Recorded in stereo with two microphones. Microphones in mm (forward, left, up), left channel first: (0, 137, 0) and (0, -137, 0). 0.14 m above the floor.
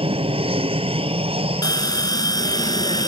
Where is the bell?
15° left (ahead or behind).